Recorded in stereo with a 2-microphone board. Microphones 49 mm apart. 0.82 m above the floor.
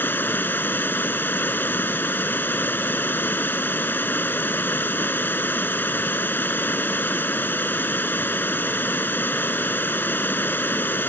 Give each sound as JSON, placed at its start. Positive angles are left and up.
{"t": 0.0, "sound": "running water", "side_deg": 45}